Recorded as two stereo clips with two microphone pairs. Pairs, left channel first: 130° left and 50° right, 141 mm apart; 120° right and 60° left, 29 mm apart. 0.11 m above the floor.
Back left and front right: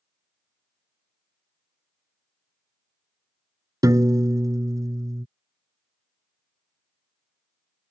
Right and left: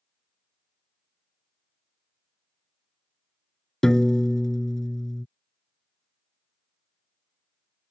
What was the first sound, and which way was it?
A piano, 70° right.